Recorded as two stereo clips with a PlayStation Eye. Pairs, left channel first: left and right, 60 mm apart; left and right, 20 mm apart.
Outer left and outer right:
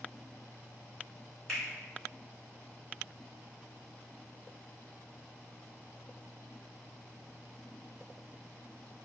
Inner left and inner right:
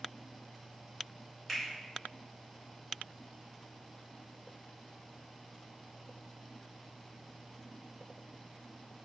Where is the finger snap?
5° left (ahead or behind), 1.3 m.